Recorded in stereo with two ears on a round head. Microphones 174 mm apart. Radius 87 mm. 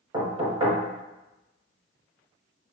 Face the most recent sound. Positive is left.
turn(degrees=-20)  # may be behind; listen again after turning